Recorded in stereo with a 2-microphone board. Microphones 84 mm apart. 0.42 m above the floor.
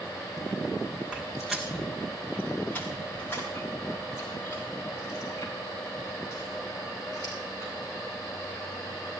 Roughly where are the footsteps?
Centre.